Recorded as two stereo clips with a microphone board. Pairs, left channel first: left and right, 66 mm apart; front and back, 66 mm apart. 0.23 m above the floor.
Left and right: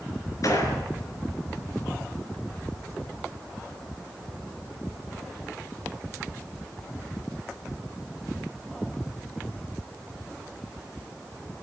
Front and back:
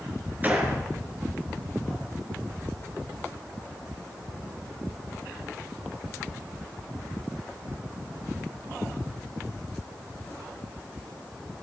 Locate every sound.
0.4 s a gunshot: 120° left, 4 m